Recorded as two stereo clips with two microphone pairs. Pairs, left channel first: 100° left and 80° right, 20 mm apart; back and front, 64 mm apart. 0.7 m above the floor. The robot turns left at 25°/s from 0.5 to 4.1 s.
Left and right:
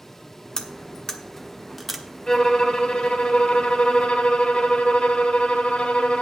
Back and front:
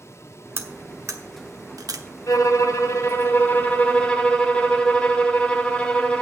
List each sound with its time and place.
0.6 s cutlery clinking: 45° left, 1.0 m; by 2.0 s 10° left, 1.0 m
2.3 s a violin: 150° left, 1.3 m; by 6.2 s 105° left, 1.3 m